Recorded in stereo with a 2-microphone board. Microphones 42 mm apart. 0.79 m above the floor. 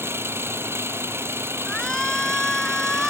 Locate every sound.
0.0 s an engine running: 80° right
1.7 s a shout: 15° left (ahead or behind)